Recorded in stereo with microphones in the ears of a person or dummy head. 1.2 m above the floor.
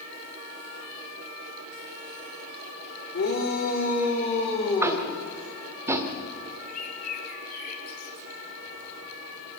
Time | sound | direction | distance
3.1 | a shout | 55° left (ahead or behind) | 4 m
4.8 | tapping | 10° right (ahead or behind) | 1.5 m
6.7 | a bird | 50° left (ahead or behind) | 2 m